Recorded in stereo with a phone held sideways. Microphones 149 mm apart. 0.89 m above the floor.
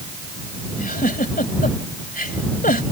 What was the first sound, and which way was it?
A giggle, 80° left.